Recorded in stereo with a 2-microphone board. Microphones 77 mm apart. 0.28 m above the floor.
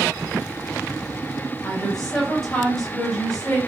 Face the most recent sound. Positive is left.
turn(degrees=10)  # may be behind; listen again after turning